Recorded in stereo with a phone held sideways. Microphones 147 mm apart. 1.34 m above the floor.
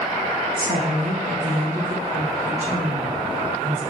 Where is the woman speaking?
80° right, 1.6 m; by 3.8 s 50° right (ahead or behind), 3.5 m.